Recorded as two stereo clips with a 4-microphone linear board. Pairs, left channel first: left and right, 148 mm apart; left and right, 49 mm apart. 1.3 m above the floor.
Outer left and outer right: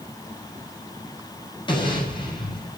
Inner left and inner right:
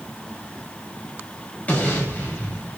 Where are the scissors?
No scissors in this recording.